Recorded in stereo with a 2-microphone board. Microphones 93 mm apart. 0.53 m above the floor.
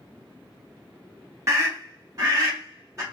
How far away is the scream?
About 0.9 m.